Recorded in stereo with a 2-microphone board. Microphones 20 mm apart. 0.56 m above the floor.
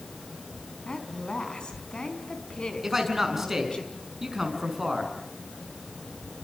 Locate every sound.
0.9 s a woman speaking: 55° left (ahead or behind), 4.5 m
2.8 s a man speaking: 15° right (ahead or behind), 5.5 m